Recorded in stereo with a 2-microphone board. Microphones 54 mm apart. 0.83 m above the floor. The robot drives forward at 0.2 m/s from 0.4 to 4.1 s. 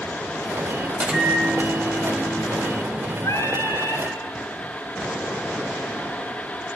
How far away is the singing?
About 2.5 m.